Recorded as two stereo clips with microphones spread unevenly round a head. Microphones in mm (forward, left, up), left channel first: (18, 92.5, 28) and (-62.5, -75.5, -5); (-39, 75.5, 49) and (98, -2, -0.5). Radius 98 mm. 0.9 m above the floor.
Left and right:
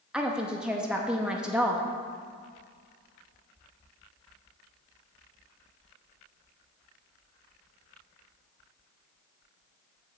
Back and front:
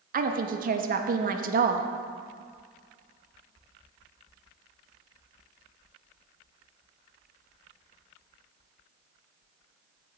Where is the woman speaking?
35° right, 0.9 m.